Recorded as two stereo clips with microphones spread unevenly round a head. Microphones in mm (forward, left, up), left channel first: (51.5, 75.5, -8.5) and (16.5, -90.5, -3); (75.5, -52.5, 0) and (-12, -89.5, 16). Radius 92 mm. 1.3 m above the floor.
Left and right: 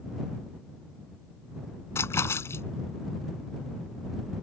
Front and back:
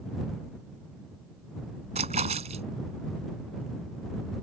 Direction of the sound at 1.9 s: 155° left.